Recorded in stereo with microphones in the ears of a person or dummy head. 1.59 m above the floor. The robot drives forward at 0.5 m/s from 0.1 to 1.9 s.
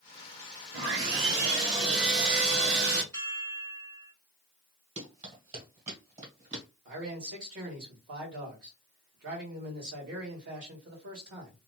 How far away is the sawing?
About 1.4 m.